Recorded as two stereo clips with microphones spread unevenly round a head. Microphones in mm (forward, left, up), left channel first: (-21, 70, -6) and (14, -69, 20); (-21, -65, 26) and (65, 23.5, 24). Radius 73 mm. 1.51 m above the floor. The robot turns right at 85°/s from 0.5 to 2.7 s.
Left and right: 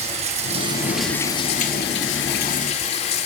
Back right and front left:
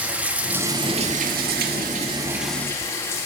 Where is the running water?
35° right, 1.8 m; by 3.3 s 155° left, 1.8 m.